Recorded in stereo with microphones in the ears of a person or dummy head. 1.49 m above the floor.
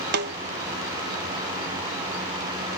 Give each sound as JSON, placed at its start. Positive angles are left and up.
{"t": 0.1, "sound": "a snare drum", "side_deg": -55}